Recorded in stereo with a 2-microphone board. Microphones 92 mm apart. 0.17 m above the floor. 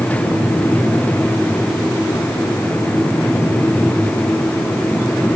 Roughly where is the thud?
No thud in this recording.